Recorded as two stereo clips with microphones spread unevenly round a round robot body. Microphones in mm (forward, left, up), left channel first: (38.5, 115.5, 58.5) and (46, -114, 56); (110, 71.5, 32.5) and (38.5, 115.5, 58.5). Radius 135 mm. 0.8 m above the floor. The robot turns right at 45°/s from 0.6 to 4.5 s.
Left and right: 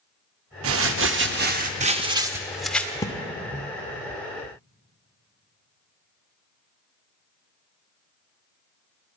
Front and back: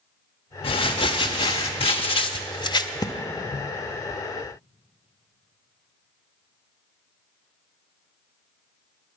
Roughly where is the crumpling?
Right.